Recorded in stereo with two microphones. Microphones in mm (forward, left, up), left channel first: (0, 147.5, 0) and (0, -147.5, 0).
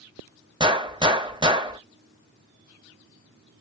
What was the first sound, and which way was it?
A gunshot, 15° right (ahead or behind).